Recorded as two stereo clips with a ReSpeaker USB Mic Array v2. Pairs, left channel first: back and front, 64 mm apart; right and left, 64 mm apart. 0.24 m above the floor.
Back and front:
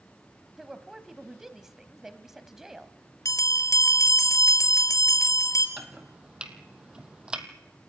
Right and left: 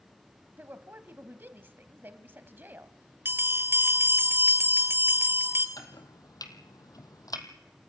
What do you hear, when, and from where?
0.6 s a woman speaking: 80° left, 1.2 m
3.2 s a bell: 150° left, 1.8 m
5.8 s chopping: 75° right, 1.6 m